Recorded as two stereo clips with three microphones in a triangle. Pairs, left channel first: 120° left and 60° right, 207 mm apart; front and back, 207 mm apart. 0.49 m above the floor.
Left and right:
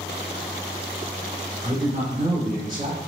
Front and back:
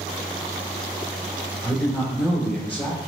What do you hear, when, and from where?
1.6 s a woman speaking: 50° right, 1.5 m